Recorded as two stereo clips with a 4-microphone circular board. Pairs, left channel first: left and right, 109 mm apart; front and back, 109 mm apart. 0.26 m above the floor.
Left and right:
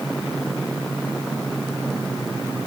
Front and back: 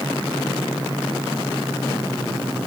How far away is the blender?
No blender in this recording.